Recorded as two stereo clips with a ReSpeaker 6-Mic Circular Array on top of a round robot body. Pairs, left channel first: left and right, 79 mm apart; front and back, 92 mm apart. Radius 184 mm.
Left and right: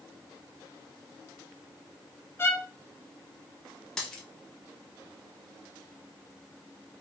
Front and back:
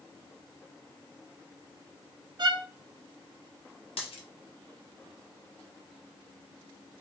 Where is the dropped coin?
10° left, 1.0 m.